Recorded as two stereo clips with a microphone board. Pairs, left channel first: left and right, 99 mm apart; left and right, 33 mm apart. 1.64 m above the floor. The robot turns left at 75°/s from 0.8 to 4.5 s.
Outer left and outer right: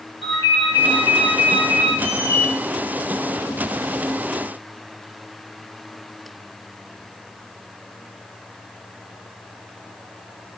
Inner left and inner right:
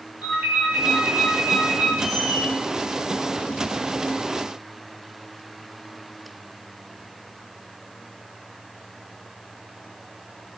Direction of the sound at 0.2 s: 75° right.